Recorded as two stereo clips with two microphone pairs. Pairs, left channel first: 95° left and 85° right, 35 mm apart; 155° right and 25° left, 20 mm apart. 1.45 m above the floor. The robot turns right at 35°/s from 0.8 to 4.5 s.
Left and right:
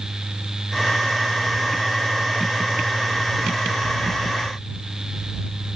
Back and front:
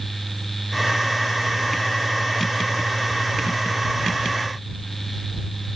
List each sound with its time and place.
Only background noise.